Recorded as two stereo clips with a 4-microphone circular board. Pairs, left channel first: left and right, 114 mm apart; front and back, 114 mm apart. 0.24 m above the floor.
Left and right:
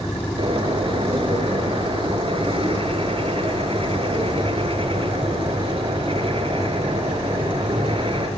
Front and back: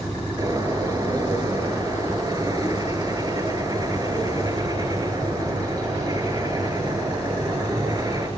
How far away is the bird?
About 3.5 m.